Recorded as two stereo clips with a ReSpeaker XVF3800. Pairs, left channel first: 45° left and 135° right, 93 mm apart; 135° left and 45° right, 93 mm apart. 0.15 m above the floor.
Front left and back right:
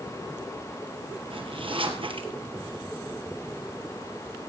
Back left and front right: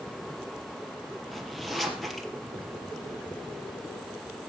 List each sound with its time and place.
1.3 s a zipper: 135° right, 2 m